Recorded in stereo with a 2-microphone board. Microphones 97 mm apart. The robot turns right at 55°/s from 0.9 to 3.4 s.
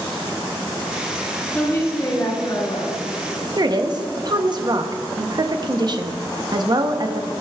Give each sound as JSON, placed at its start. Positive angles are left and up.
{"t": 1.5, "sound": "a woman speaking", "azimuth_deg": 10, "distance_m": 3.0}
{"t": 3.6, "sound": "a woman speaking", "side_deg": -45, "distance_m": 0.7}